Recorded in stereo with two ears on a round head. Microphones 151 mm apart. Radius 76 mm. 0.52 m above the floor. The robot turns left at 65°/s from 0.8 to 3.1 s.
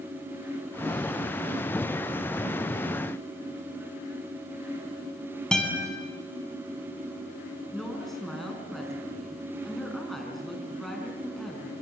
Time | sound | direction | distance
5.5 | a guitar | 5° left (ahead or behind) | 4.5 m
7.7 | a woman speaking | centre (ahead or behind) | 5.5 m